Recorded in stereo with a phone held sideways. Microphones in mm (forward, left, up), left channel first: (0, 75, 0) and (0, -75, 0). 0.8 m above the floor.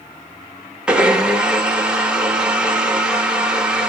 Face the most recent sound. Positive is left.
turn(degrees=-5)  # may be behind; listen again after turning